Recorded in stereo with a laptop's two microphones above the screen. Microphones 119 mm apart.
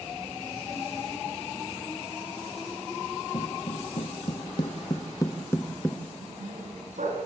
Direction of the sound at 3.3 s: 55° left (ahead or behind).